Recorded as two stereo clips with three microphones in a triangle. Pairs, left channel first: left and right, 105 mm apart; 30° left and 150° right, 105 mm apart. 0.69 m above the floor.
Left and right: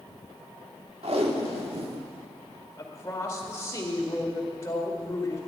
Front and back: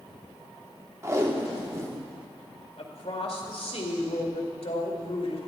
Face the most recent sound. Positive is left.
turn(degrees=30)